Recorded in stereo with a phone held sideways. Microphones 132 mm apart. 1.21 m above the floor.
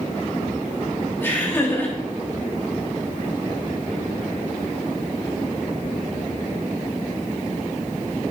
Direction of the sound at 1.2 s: 15° left (ahead or behind).